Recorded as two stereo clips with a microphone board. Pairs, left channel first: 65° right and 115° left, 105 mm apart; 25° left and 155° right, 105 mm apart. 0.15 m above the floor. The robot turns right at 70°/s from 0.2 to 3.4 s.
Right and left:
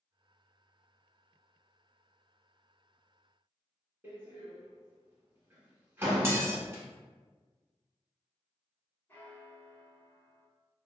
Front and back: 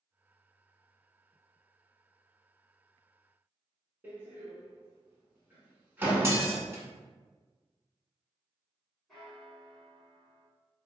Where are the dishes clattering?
155° left, 0.8 m.